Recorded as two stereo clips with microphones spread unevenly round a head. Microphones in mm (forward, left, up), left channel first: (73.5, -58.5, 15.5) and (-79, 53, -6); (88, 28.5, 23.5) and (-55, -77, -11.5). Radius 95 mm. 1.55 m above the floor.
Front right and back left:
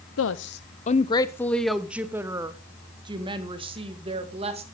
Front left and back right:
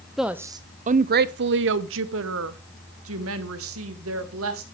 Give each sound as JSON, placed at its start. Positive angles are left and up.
{"t": 0.2, "sound": "a woman speaking", "azimuth_deg": -55, "distance_m": 0.6}